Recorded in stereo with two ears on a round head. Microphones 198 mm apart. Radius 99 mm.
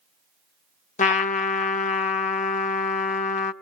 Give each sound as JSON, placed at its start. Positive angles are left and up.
{"t": 1.0, "sound": "a trumpet", "side_deg": 35, "distance_m": 0.7}